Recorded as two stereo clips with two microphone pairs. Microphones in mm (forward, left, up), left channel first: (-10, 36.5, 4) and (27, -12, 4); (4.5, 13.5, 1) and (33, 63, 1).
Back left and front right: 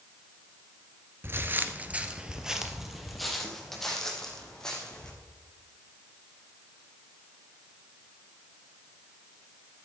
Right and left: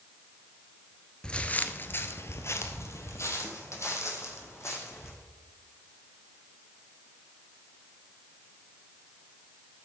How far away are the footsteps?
About 1.4 m.